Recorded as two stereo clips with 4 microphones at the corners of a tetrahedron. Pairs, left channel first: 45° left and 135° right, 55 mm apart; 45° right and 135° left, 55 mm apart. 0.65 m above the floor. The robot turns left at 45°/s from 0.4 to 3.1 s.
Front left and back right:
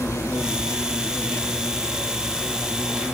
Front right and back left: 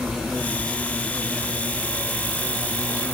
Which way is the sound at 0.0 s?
50° left.